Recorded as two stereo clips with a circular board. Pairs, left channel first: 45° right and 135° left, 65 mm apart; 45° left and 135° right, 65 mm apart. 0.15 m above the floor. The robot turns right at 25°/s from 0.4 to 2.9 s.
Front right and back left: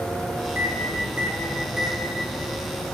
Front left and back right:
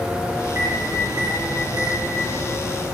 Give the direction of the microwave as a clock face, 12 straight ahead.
6 o'clock.